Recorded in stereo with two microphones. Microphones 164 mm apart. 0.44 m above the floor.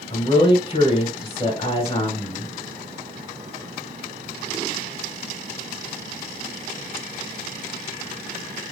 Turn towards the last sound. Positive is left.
turn(degrees=35)  # may be behind; listen again after turning